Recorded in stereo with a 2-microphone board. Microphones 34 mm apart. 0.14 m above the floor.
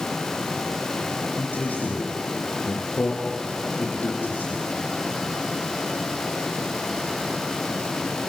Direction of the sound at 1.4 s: 55° left (ahead or behind).